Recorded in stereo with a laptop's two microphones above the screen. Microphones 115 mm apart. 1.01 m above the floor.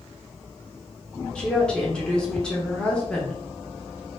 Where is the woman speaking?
10° left (ahead or behind), 1.0 m.